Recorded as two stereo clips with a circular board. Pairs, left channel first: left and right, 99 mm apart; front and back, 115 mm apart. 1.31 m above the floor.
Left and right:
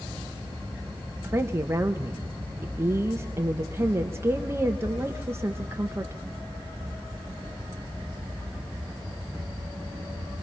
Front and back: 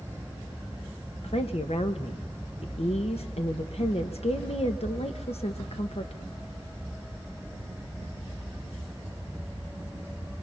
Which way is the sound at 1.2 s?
25° right.